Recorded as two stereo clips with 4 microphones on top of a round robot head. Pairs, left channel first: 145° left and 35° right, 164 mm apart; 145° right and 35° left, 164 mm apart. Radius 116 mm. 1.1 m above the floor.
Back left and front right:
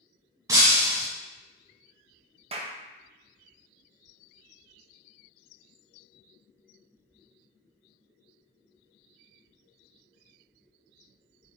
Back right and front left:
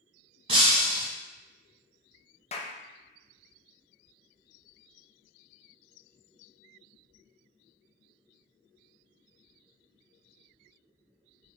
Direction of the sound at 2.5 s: 90° right.